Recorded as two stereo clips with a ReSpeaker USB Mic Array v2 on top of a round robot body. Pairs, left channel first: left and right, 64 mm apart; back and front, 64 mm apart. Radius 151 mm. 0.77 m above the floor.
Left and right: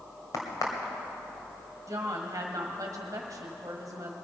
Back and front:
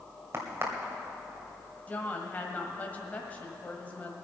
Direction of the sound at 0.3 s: 55° left.